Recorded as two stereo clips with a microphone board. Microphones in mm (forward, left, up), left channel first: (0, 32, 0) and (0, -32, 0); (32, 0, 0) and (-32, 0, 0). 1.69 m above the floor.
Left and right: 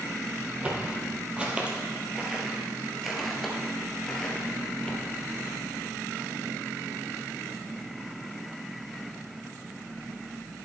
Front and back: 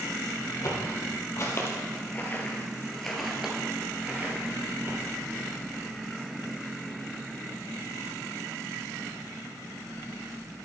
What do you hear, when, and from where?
0.6 s footsteps: 20° right, 3 m; by 5.0 s 160° left, 2 m